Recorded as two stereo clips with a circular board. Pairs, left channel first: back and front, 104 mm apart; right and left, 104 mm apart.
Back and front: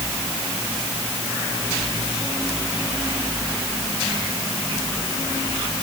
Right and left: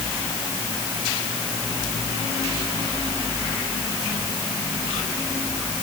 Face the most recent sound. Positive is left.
No sound to turn to.